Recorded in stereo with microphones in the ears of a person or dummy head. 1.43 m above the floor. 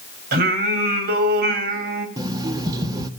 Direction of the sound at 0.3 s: 55° right (ahead or behind).